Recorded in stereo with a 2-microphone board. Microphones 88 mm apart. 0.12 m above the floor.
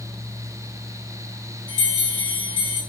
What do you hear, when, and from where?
1.7 s a bell: 65° right (ahead or behind), 5.5 m